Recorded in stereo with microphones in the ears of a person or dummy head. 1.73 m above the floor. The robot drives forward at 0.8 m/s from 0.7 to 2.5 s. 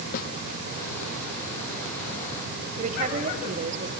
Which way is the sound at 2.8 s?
45° right (ahead or behind).